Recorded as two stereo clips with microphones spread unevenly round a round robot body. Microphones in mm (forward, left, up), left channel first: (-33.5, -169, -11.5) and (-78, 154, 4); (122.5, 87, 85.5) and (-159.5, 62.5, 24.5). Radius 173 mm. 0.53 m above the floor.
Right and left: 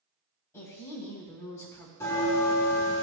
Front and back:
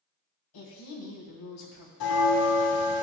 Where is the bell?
Straight ahead, 1.0 m.